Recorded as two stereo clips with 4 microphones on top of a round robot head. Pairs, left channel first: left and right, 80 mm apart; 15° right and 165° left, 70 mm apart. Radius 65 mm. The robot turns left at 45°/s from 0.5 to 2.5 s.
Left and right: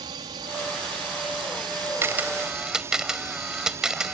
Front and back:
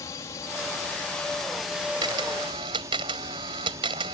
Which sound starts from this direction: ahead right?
A drone, at 0.0 s.